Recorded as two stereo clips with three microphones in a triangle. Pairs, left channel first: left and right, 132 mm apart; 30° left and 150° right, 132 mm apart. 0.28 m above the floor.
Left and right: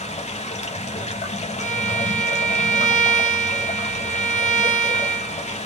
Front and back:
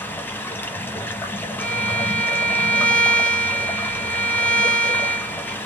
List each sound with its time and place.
0.0 s running water: 100° left, 0.9 m
1.6 s a violin: 110° left, 1.4 m